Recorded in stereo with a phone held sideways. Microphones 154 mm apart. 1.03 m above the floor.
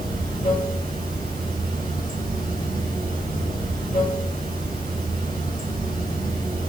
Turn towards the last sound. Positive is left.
turn(degrees=60)  # may be behind; listen again after turning